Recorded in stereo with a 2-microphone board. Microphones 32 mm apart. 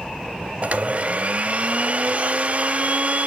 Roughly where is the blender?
Right.